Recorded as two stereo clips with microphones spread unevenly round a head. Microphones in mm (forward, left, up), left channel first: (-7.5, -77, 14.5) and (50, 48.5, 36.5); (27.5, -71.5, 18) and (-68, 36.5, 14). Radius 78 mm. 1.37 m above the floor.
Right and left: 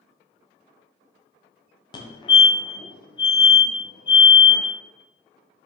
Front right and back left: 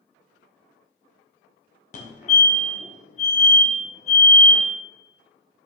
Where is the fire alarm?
75° right, 1.3 m.